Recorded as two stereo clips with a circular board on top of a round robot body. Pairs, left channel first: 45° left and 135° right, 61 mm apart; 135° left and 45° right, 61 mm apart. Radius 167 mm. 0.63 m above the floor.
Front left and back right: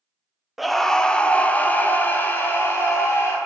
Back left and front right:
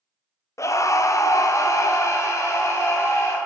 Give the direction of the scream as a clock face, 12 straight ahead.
7 o'clock.